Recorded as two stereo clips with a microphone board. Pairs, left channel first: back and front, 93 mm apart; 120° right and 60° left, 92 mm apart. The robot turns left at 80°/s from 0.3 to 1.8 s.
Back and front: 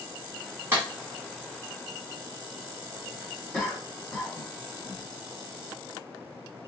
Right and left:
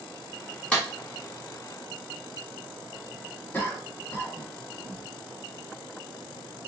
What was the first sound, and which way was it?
A clap, 55° right.